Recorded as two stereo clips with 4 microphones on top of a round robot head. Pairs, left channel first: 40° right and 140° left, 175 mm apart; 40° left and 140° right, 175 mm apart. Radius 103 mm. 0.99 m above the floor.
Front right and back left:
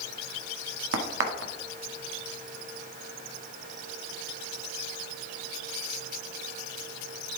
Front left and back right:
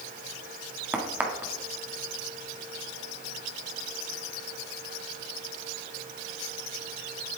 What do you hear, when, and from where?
0.9 s a crack: 135° left, 1.5 m